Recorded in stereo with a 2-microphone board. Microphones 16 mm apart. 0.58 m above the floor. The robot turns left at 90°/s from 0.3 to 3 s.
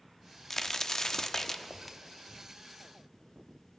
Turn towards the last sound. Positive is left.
turn(degrees=-95)